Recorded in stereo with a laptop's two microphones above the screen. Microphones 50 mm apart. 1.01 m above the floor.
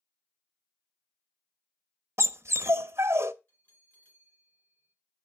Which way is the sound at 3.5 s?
40° left (ahead or behind).